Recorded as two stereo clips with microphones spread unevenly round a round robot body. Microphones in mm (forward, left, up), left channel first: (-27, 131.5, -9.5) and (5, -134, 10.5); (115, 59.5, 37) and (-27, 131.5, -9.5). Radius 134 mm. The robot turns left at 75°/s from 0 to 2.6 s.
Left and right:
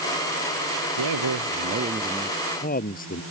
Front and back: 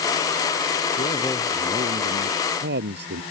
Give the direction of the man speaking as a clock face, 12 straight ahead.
3 o'clock.